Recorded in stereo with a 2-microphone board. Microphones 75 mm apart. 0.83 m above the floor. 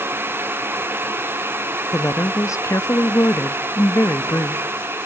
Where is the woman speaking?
45° left (ahead or behind), 0.7 m.